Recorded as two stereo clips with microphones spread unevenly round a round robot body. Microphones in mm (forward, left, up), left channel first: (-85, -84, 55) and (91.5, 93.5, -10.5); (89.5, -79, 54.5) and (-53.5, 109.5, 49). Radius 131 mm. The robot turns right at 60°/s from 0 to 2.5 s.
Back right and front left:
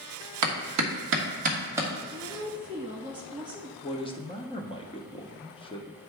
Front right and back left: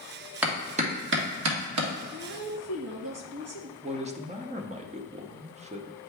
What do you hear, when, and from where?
0.4 s a clap: 45° left, 1.4 m; by 1.9 s 130° left, 1.4 m
2.1 s a woman speaking: 100° left, 2 m; by 3.7 s 125° left, 2 m
3.8 s a man speaking: 145° left, 0.8 m